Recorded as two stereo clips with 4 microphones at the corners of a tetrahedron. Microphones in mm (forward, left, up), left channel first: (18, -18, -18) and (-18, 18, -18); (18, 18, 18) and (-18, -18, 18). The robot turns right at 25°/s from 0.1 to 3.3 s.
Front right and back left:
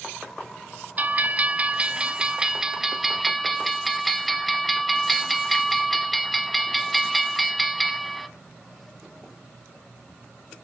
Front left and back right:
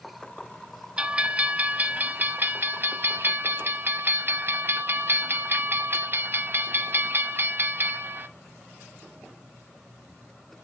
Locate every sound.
1.0 s a bell: 165° left, 0.6 m; by 8.3 s 135° right, 0.6 m